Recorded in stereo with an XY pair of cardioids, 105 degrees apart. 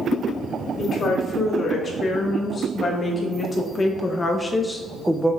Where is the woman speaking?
50° left, 2.5 m; by 5.4 s 10° right, 0.6 m.